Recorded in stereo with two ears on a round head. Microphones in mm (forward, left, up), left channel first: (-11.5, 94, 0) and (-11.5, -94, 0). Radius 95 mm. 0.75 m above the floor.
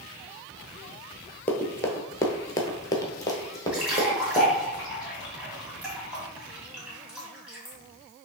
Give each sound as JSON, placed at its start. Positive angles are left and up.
{"t": 1.5, "sound": "running footsteps", "side_deg": 10, "distance_m": 0.8}
{"t": 3.7, "sound": "a splash", "side_deg": -5, "distance_m": 1.9}